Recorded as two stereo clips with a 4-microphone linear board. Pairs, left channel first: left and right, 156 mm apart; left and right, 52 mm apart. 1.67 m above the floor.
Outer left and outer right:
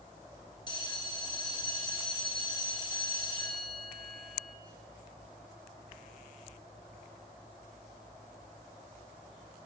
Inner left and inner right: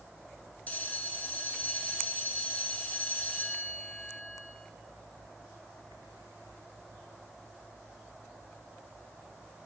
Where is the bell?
25° left (ahead or behind), 1.2 m.